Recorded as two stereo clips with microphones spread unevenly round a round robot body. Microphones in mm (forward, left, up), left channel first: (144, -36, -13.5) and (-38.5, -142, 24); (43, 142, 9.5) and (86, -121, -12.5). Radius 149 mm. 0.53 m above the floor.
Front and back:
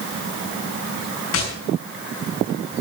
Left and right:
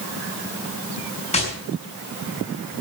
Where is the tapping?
35° left, 6 m.